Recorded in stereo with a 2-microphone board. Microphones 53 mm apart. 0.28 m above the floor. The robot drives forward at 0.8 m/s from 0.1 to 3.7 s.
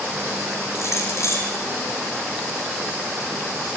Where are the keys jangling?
60° left (ahead or behind), 9 m.